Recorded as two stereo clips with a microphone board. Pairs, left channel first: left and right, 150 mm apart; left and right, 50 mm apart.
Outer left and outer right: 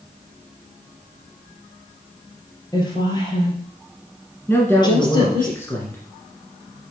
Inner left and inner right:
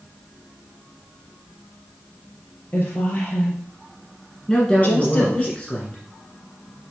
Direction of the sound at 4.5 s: 15° left (ahead or behind).